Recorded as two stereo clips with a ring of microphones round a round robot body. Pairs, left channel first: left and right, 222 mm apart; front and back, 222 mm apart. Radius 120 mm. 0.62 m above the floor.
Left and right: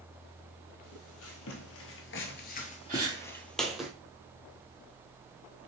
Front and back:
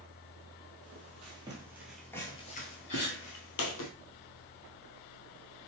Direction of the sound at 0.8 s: 120° left.